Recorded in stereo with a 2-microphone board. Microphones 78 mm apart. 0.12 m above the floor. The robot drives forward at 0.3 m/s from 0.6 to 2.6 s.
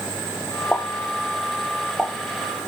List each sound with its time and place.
0.7 s a pop: 10° left (ahead or behind), 0.8 m; by 2.1 s 5° left (ahead or behind), 1.2 m